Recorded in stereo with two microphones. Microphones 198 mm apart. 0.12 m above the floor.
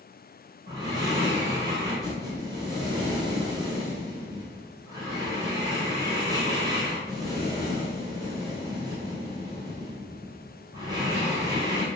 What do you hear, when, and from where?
0.7 s breathing: 20° right (ahead or behind), 1.3 m